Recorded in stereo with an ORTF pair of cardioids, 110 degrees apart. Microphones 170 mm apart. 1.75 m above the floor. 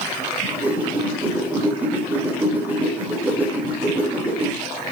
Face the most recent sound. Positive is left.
turn(degrees=-10)